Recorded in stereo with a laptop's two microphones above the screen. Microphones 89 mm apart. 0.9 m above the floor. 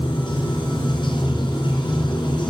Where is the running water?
60° left (ahead or behind), 3.5 m.